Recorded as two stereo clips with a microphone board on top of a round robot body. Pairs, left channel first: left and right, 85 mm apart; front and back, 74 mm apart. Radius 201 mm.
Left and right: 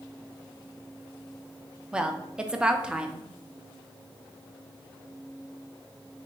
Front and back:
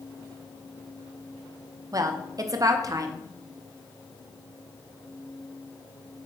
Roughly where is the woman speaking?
Behind.